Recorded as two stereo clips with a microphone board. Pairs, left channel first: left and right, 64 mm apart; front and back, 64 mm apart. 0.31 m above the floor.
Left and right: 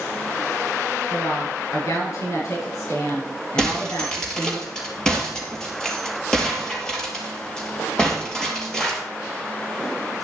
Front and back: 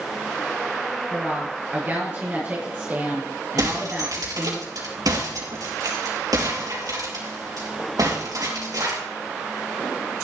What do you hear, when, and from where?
1.1 s a woman speaking: 120° left, 6.5 m
3.6 s breaking glass: 170° left, 4 m